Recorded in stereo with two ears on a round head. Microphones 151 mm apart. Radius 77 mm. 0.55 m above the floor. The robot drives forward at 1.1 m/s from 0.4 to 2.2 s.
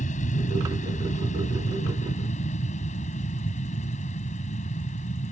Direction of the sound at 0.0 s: 50° left (ahead or behind).